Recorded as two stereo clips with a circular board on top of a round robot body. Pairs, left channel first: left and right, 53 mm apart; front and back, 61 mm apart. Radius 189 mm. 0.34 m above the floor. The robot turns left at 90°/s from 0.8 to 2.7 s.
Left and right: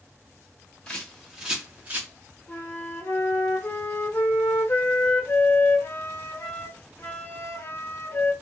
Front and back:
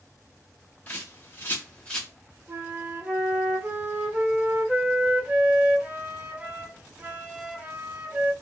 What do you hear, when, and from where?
0.9 s a bird: 35° left, 1.3 m; by 2.1 s 75° right, 1.3 m
2.5 s a flute: 135° left, 1.0 m; by 8.3 s 115° left, 1.0 m